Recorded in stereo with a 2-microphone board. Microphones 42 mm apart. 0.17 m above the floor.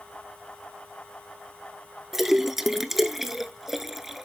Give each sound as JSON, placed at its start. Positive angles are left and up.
{"t": 2.1, "sound": "a splash", "side_deg": -5, "distance_m": 0.5}